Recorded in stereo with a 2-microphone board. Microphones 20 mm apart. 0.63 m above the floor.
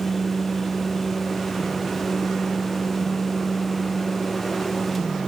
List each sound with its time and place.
Only background noise.